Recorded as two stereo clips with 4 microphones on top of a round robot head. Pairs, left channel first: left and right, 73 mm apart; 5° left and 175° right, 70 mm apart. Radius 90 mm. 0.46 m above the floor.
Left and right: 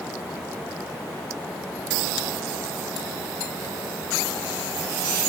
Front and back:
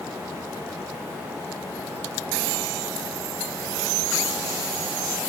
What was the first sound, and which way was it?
Only background noise.